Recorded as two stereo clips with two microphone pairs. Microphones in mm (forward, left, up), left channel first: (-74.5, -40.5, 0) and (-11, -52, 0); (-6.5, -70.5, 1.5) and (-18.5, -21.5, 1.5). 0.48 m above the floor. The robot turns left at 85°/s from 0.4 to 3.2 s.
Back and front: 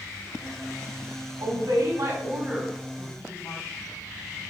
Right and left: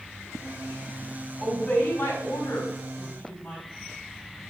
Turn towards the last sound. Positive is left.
turn(degrees=-150)